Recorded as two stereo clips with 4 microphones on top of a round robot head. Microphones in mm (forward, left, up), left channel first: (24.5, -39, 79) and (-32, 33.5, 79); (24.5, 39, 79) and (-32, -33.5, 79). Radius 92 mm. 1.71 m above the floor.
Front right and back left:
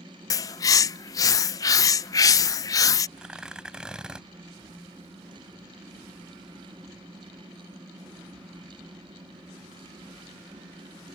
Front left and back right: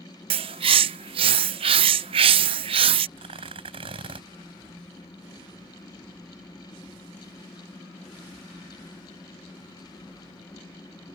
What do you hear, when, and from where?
0.3 s a bird: 105° right
3.2 s tearing paper: 150° right